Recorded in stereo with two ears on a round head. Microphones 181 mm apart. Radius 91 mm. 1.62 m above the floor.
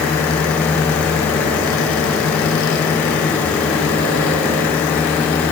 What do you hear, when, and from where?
Only background noise.